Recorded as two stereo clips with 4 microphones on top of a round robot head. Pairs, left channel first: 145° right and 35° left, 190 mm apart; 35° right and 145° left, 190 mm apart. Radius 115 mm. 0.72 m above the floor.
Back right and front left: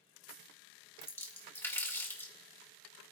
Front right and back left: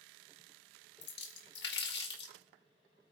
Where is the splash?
65° right, 1.8 m.